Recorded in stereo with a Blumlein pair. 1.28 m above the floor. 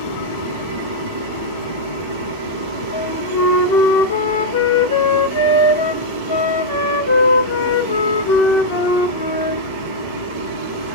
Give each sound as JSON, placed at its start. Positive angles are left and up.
{"t": 0.0, "sound": "a machine running", "azimuth_deg": 60, "distance_m": 1.7}
{"t": 2.9, "sound": "a flute", "azimuth_deg": 60, "distance_m": 1.1}